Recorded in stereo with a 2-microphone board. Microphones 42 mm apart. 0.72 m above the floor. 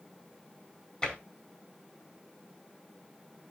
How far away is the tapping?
About 4.5 m.